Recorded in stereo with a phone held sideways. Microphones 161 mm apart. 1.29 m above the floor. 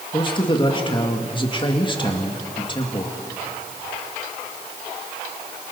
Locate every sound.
0.1 s a man speaking: 30° left (ahead or behind), 2.5 m